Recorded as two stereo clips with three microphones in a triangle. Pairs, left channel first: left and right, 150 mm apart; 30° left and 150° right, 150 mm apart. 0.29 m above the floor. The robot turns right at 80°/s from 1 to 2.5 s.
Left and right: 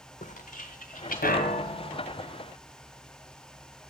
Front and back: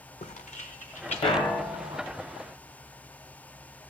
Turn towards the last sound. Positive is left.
turn(degrees=180)